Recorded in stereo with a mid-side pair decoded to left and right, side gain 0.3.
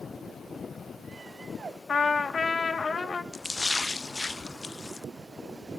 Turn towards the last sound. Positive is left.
turn(degrees=30)